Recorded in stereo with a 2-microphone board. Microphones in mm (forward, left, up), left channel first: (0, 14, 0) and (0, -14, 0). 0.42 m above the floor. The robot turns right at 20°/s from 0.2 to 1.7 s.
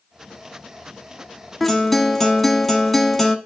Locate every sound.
1.6 s a guitar: 5° left (ahead or behind), 0.9 m